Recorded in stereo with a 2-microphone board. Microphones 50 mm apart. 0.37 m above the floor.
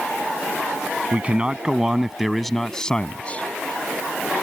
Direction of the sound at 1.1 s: 30° right (ahead or behind).